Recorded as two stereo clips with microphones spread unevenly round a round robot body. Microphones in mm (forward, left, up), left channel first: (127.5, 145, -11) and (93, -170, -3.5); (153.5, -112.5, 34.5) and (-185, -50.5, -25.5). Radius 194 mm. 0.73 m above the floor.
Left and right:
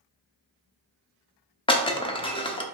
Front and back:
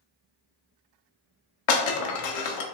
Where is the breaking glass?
10° left, 0.7 m.